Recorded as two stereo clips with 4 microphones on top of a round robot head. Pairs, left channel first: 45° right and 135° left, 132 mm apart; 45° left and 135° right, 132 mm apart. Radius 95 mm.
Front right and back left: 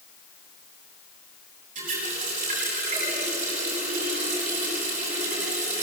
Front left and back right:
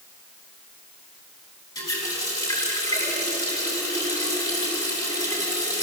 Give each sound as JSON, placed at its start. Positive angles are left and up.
{"t": 1.8, "sound": "a running tap", "azimuth_deg": 105, "distance_m": 8.5}